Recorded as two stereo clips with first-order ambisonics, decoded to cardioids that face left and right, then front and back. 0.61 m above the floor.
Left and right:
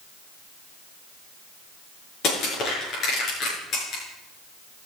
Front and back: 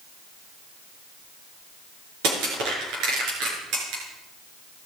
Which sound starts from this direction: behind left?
Crushing, at 2.2 s.